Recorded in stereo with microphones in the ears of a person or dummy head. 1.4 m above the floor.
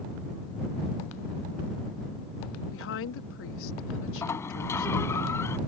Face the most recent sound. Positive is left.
turn(degrees=20)  # may be behind; listen again after turning